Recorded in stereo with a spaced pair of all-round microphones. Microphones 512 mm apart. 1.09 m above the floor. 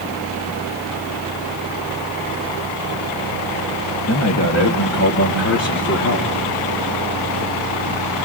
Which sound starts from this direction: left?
A man speaking, at 4.1 s.